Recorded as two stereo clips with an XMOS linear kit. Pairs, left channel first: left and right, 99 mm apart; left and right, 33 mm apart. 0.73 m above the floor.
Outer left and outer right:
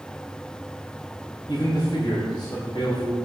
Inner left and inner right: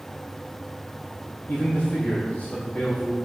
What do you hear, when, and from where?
1.5 s a man speaking: 45° left (ahead or behind), 3 m